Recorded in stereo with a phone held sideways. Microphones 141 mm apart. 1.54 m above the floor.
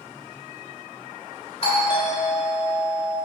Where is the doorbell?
40° left (ahead or behind), 2.5 m.